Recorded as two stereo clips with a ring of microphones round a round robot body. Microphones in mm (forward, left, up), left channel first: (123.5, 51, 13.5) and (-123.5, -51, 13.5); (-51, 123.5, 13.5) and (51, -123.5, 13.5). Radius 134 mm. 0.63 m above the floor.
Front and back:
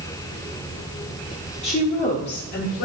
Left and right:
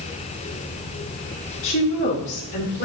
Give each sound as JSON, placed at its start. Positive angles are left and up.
{"t": 1.6, "sound": "a woman speaking", "azimuth_deg": 85, "distance_m": 1.9}